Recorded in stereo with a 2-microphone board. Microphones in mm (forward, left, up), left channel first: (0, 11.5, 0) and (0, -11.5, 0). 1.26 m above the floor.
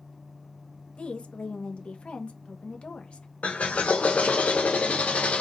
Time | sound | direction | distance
1.0 | a woman speaking | 55° left (ahead or behind) | 1.1 m
3.4 | a drill | 85° left | 1.0 m